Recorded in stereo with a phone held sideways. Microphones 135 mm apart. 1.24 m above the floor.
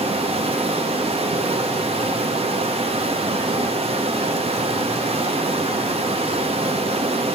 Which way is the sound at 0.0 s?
45° right (ahead or behind).